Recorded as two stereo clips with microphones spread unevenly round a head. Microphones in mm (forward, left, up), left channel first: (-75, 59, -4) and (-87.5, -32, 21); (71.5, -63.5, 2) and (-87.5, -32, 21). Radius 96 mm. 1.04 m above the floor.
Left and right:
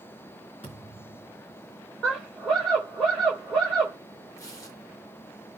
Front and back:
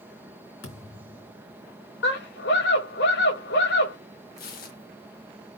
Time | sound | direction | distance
0.6 | a thud | 15° left | 4 m
2.0 | a scream | 5° right | 5 m
4.4 | tearing paper | 20° left | 1.8 m